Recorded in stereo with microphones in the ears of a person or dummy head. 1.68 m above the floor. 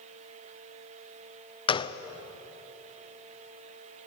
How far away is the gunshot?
About 0.7 m.